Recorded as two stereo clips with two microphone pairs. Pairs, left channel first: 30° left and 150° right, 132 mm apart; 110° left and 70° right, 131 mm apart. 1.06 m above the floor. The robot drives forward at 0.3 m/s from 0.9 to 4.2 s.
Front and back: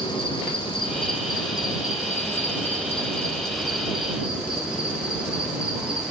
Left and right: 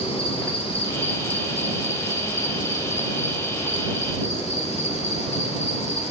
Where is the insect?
75° left, 1.0 m; by 6.1 s 130° left, 1.3 m.